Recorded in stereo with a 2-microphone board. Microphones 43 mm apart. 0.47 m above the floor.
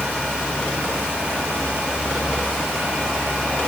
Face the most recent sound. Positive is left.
No sound to turn to.